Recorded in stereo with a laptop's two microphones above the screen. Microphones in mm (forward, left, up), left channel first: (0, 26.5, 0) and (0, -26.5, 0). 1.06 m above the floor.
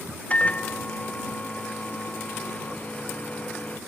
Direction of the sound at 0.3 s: 25° left (ahead or behind).